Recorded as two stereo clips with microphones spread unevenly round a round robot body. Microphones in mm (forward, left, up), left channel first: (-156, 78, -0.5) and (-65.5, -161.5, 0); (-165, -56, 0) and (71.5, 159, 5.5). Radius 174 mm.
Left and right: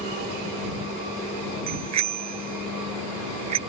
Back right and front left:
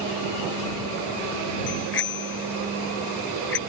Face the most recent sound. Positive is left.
turn(degrees=-80)